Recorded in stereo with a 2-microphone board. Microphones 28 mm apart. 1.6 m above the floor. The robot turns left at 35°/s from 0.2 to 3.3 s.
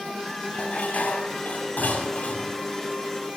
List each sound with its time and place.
0.5 s dishes clattering: 125° left, 7.5 m; by 2.5 s 55° left, 7.5 m